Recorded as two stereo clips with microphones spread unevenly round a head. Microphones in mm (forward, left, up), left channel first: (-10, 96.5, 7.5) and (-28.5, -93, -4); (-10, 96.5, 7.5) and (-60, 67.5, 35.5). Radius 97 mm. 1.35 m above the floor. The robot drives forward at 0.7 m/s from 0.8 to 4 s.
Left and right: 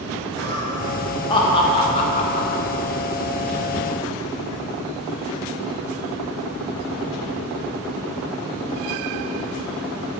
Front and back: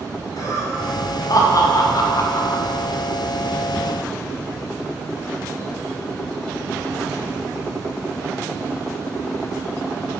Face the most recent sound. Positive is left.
turn(degrees=95)